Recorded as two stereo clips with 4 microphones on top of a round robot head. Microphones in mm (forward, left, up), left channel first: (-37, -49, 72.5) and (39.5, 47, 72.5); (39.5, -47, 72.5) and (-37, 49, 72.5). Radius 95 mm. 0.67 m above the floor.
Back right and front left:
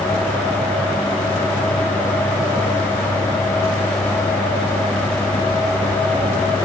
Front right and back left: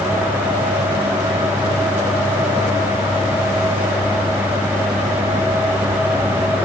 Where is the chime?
I don't hear a chime.